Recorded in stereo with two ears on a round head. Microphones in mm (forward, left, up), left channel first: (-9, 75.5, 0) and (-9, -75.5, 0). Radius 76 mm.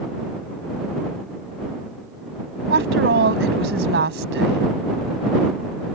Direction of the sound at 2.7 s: 80° right.